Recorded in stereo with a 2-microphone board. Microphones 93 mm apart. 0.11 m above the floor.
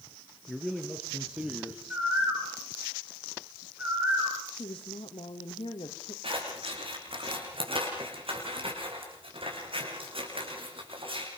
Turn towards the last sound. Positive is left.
turn(degrees=-70)  # may be behind; listen again after turning